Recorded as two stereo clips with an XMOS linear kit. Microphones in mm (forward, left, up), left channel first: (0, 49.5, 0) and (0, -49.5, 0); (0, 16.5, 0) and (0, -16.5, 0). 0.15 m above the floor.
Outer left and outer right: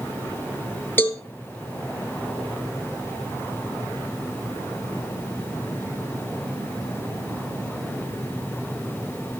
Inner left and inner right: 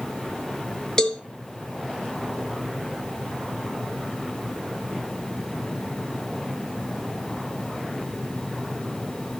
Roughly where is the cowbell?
Centre.